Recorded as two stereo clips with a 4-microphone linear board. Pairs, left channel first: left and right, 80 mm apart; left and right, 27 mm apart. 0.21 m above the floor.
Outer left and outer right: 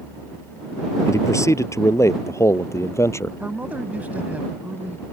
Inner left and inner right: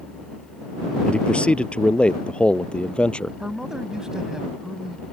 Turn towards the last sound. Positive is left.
turn(degrees=-20)  # may be behind; listen again after turning